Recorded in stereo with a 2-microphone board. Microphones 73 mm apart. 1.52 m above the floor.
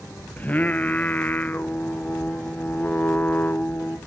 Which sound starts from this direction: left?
Singing, at 0.4 s.